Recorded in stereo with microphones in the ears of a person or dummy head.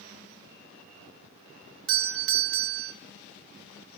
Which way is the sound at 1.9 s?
60° right (ahead or behind).